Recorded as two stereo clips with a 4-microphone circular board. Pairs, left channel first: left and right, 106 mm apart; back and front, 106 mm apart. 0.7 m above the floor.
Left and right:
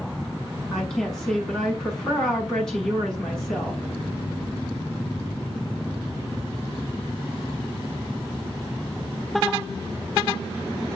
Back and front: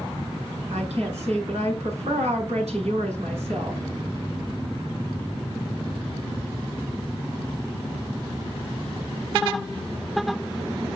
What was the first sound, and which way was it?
A woman speaking, 5° left.